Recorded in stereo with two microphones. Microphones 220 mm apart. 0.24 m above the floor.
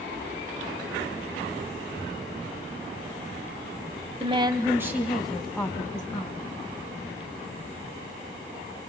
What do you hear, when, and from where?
4.2 s a woman speaking: 25° right (ahead or behind), 1.3 m; by 6.5 s 15° left (ahead or behind), 2.5 m